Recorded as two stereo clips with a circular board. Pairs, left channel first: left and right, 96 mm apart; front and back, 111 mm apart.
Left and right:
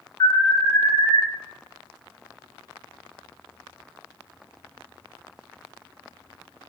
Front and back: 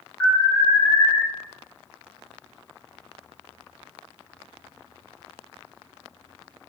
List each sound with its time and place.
0.2 s an alarm: 60° left, 1.4 m